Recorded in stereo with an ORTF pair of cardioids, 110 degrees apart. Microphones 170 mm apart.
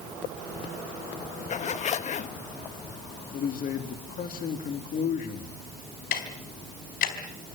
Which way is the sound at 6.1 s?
65° left.